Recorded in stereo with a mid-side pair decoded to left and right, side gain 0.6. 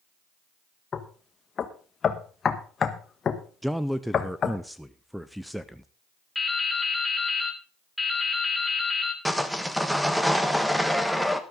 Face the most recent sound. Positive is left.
turn(degrees=0)